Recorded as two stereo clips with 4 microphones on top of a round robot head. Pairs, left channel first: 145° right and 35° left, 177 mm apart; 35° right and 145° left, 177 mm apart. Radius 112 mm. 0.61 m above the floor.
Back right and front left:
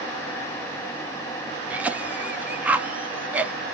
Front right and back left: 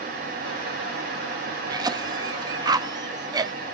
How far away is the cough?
About 0.8 m.